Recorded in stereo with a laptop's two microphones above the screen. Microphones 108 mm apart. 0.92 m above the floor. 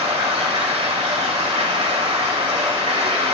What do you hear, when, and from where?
0.0 s running water: 75° right (ahead or behind), 1.6 m